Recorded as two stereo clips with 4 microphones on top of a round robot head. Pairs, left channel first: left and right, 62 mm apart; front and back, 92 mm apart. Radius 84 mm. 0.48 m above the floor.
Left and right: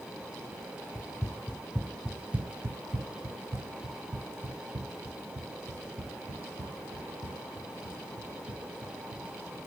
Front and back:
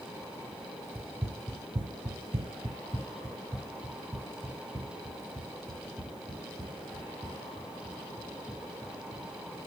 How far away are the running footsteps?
About 0.7 m.